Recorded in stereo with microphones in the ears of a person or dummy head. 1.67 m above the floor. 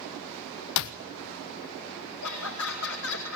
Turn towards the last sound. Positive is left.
turn(degrees=80)